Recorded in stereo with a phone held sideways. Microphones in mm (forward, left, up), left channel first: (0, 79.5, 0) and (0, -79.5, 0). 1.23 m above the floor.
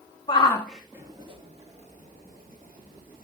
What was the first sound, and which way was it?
A shout, 30° left (ahead or behind).